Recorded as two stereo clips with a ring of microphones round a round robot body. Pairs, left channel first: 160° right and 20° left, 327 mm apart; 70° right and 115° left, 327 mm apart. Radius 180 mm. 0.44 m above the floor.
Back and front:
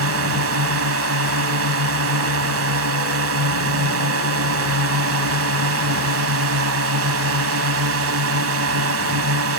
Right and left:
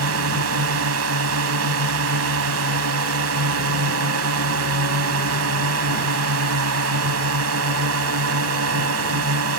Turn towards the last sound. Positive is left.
turn(degrees=70)